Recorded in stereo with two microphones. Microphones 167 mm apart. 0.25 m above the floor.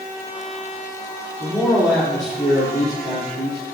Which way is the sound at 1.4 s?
5° left (ahead or behind).